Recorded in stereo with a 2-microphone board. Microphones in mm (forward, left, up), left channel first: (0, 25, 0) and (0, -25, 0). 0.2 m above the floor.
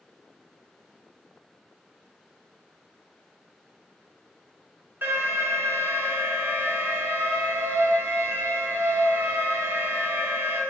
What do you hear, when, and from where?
5.0 s an alarm: 45° right (ahead or behind), 1.3 m